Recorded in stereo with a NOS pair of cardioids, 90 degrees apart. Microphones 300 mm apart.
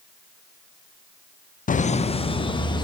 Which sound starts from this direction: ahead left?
Laughter, at 1.7 s.